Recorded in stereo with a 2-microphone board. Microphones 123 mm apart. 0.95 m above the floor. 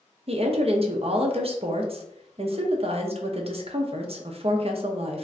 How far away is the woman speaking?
About 0.5 m.